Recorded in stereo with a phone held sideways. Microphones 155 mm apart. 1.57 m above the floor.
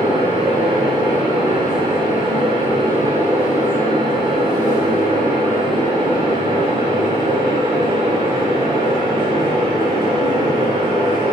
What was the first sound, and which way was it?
A fan, 30° right (ahead or behind).